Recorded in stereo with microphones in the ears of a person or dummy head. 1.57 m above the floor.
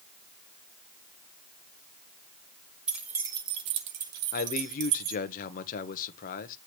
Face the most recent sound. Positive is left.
turn(degrees=50)  # may be behind; listen again after turning